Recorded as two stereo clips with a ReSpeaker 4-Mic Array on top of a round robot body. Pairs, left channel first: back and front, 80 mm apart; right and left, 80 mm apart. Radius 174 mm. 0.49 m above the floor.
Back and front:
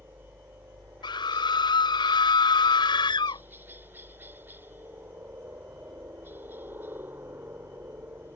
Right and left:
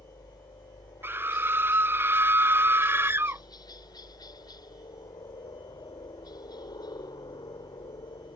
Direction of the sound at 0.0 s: 65° right.